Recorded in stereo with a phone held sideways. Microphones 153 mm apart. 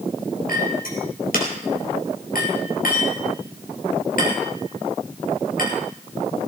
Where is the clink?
70° left (ahead or behind), 4 m.